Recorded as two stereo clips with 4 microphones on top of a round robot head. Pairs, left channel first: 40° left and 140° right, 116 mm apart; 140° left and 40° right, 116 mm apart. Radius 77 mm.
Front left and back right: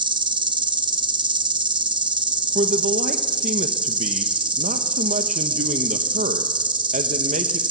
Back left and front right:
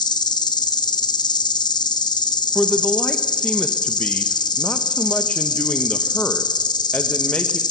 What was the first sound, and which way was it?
An insect, 175° right.